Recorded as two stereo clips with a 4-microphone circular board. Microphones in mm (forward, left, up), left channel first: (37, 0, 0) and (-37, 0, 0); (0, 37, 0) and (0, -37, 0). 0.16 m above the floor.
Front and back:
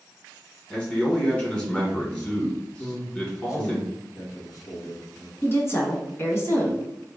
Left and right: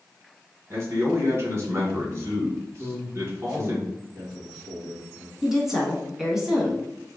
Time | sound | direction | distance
0.7 | a man speaking | 70° right | 1.3 m
2.8 | a man speaking | 20° right | 1.7 m
5.4 | a woman speaking | 10° right | 1.3 m